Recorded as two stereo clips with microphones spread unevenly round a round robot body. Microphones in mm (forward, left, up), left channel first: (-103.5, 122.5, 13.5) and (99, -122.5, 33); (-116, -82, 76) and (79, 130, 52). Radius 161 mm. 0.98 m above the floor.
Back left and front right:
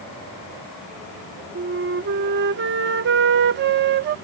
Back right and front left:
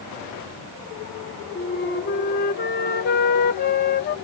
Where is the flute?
90° right.